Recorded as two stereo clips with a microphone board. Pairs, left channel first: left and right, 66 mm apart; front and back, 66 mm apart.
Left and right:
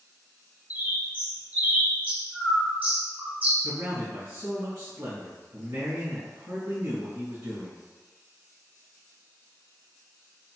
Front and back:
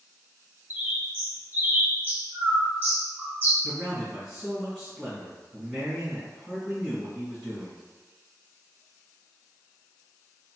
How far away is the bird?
About 0.9 m.